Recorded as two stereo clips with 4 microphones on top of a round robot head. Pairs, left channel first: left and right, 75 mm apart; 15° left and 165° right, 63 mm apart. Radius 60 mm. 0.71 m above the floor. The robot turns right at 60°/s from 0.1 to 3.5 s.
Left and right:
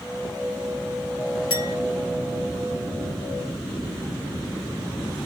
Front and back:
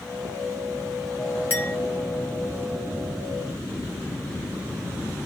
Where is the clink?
70° left, 7 m; by 1.8 s 85° left, 7 m.